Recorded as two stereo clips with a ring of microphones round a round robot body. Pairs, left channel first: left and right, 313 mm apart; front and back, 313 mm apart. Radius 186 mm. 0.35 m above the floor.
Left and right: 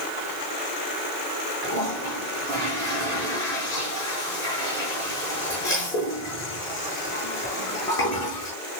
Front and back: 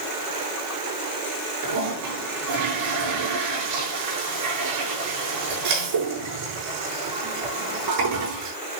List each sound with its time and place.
1.6 s a toilet flushing: 170° left, 7.5 m